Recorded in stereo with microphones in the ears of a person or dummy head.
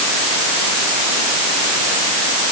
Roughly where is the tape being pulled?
I don't hear tape being pulled.